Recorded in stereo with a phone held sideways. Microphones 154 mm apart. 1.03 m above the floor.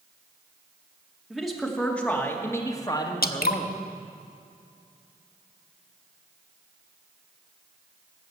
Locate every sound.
1.3 s a man speaking: centre (ahead or behind), 2 m; by 3.8 s 40° left (ahead or behind), 1.8 m
3.2 s dripping: 75° left (ahead or behind), 0.8 m